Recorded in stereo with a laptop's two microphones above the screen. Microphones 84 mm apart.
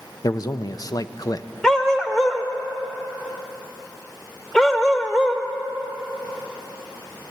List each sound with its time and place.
0.2 s a man speaking: 45° left (ahead or behind), 0.6 m
1.6 s a dog barking: 5° left (ahead or behind), 1.0 m